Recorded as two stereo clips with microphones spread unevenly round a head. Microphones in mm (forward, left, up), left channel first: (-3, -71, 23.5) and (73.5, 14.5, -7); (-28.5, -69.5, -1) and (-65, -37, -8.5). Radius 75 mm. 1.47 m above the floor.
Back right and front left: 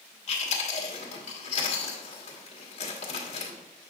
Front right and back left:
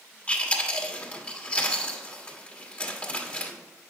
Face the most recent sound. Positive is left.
turn(degrees=-105)